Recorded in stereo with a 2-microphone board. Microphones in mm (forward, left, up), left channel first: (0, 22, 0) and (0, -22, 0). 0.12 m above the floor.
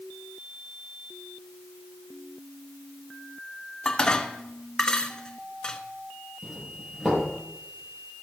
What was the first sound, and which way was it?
Dishes clattering, 20° left (ahead or behind).